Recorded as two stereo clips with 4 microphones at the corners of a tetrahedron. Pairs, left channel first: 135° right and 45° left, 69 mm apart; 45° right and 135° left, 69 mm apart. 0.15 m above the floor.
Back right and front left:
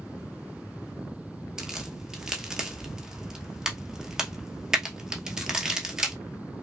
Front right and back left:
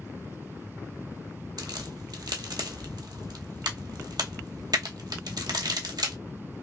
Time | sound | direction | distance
1.6 | a crack | 125° left | 1.1 m